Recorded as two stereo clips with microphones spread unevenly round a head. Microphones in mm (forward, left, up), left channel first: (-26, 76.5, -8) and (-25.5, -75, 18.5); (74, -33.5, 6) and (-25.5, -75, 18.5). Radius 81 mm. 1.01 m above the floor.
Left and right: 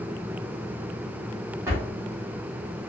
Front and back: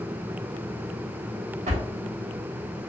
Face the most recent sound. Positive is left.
turn(degrees=-160)